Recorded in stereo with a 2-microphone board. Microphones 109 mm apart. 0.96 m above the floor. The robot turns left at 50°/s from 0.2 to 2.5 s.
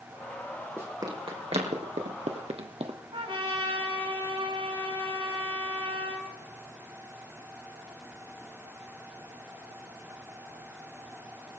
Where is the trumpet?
50° right (ahead or behind), 5.5 m.